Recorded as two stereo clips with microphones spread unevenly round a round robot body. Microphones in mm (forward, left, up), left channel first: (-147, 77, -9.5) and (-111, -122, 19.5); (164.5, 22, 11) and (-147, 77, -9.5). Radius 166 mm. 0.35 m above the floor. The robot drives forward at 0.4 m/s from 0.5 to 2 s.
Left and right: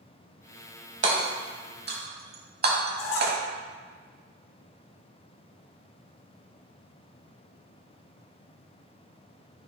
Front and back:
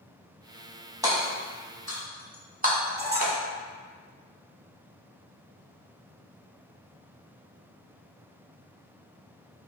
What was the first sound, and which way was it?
Hammering, 110° right.